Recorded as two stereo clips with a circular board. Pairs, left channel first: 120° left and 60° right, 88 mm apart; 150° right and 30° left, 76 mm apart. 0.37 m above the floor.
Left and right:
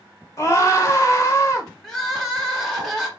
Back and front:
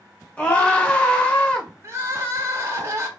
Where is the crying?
35° left, 1.2 m.